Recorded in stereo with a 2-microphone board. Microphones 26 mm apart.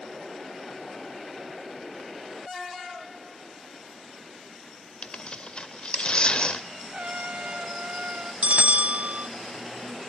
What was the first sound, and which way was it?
Tearing paper, 50° left (ahead or behind).